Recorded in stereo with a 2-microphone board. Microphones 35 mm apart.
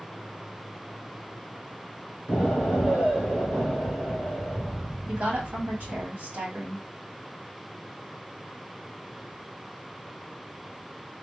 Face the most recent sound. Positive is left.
turn(degrees=-60)  # may be behind; listen again after turning